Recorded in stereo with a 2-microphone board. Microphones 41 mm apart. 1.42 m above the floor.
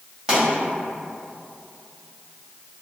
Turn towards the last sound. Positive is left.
turn(degrees=-20)  # may be behind; listen again after turning